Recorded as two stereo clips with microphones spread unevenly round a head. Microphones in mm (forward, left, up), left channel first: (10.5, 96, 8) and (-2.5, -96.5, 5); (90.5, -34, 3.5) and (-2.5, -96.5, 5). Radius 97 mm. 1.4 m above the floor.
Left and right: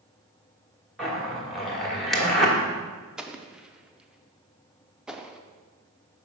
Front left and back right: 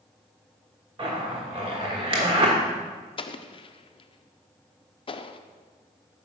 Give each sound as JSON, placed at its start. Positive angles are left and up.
{"t": 1.0, "sound": "a zipper", "azimuth_deg": 175, "distance_m": 1.3}
{"t": 3.2, "sound": "an explosion", "azimuth_deg": -10, "distance_m": 0.5}